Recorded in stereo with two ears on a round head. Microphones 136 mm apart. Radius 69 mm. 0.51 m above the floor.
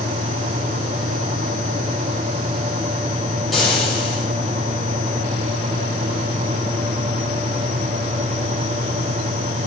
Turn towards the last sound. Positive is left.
turn(degrees=0)  # may be behind; listen again after turning